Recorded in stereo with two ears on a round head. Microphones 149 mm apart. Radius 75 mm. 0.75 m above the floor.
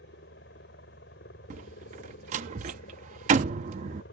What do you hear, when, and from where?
0.0 s a helicopter: 65° left (ahead or behind)
1.5 s a door slam: 45° right (ahead or behind)